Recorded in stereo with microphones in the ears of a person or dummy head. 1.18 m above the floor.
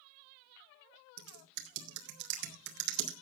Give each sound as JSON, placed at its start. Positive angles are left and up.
{"t": 1.2, "sound": "typing on a keyboard", "side_deg": -60, "distance_m": 2.0}